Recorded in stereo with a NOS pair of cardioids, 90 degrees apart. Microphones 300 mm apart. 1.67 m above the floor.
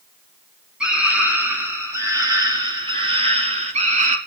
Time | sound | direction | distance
0.8 | a scream | 5° right | 4.5 m